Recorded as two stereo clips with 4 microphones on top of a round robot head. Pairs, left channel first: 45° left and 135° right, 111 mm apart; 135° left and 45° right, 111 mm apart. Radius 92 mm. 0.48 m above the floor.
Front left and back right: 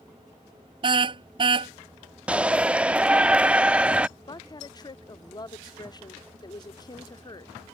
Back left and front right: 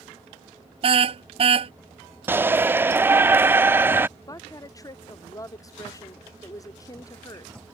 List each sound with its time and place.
0.8 s a car horn: 85° right
2.3 s a shout: 75° right
4.3 s a woman speaking: 85° left